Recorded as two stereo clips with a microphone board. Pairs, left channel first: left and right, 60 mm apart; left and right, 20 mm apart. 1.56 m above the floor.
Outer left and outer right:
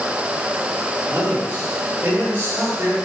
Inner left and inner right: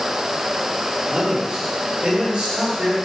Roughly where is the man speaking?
Right.